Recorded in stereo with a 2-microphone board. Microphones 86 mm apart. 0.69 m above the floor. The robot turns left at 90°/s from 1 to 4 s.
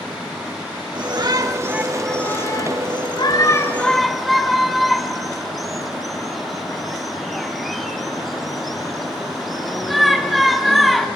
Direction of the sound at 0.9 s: 90° right.